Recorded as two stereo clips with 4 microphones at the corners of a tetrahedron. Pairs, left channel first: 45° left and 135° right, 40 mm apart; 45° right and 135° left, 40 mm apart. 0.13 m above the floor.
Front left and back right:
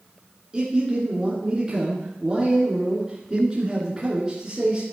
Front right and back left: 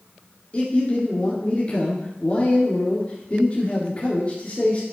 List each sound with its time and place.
0.5 s a man speaking: 75° right, 2 m